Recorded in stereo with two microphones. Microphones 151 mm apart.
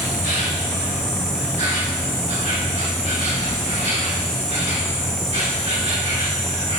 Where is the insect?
50° right (ahead or behind), 1.7 m.